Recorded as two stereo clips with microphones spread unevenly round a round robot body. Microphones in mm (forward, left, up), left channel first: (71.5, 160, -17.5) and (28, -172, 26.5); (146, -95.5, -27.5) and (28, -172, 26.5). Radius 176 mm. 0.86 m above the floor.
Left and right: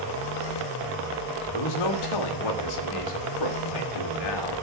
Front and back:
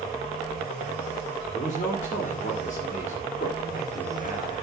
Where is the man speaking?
85° left, 2 m.